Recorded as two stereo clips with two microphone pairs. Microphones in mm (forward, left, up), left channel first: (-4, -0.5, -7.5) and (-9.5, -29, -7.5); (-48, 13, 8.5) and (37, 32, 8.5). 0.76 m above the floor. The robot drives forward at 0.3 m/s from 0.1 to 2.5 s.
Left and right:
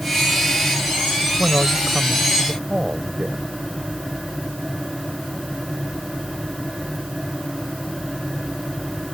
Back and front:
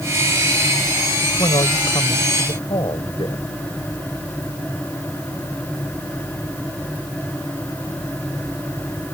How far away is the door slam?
No door slam in this recording.